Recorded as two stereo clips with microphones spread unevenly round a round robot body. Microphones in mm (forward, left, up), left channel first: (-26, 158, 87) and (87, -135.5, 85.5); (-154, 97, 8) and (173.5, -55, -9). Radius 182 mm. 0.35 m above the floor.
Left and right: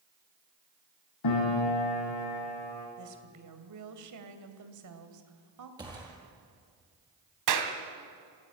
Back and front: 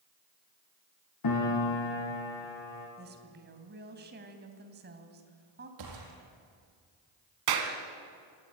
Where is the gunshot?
10° left, 4.5 m.